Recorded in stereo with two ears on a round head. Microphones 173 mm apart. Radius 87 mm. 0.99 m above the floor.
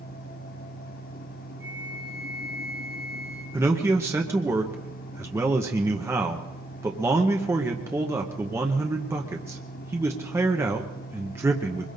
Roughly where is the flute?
Centre.